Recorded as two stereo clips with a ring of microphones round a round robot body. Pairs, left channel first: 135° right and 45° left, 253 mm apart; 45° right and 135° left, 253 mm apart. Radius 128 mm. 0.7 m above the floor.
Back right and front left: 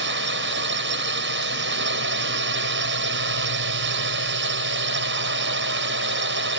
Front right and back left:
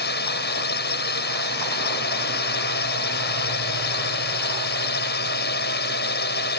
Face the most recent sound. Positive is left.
turn(degrees=5)